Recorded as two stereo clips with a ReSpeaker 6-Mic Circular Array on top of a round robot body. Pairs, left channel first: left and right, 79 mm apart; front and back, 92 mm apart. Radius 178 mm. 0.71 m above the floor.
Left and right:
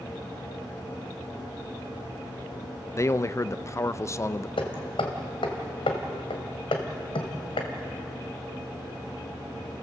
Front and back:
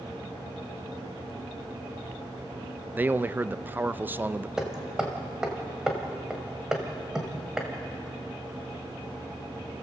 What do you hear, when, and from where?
2.9 s a man speaking: 120° left, 0.7 m
4.6 s hammering: 95° left, 1.8 m